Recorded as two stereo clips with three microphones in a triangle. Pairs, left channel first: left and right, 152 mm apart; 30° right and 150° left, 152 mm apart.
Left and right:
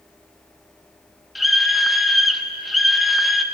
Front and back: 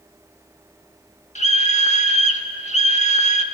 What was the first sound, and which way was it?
A scream, straight ahead.